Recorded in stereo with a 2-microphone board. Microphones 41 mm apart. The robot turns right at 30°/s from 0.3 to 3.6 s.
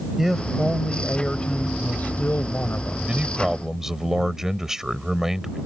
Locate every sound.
0.2 s a man speaking: 10° right; by 3.0 s 70° left
3.1 s a man speaking: 30° right (ahead or behind); by 5.6 s 10° right (ahead or behind)